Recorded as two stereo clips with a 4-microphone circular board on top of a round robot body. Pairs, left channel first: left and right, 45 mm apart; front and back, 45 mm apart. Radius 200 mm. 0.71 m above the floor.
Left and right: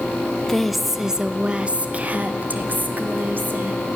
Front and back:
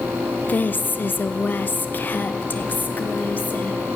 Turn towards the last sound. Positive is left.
turn(degrees=-50)